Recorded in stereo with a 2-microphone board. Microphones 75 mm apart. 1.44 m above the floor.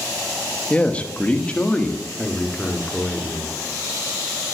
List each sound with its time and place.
0.7 s a man speaking: 20° left (ahead or behind), 1.6 m